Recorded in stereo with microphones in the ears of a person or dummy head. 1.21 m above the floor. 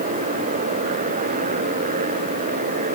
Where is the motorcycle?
40° right (ahead or behind).